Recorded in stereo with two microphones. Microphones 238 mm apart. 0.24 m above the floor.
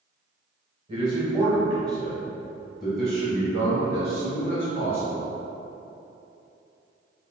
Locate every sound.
0.9 s a man speaking: 20° right (ahead or behind), 1.3 m; by 5.3 s 40° left (ahead or behind), 2.5 m